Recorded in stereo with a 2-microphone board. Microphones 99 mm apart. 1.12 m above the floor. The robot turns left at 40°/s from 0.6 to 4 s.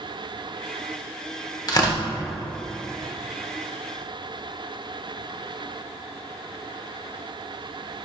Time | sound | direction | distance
1.7 | tearing paper | 40° left (ahead or behind) | 1.4 m